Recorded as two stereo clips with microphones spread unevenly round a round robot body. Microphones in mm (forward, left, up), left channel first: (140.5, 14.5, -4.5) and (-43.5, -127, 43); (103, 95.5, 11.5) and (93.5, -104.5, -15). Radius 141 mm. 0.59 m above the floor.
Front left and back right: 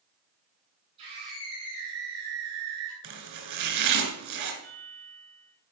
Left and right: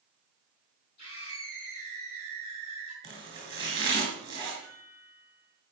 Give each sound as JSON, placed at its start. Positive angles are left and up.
{"t": 1.0, "sound": "a scream", "azimuth_deg": 145, "distance_m": 6.5}
{"t": 3.0, "sound": "chopping", "azimuth_deg": -165, "distance_m": 2.5}
{"t": 4.6, "sound": "a chime", "azimuth_deg": 130, "distance_m": 4.0}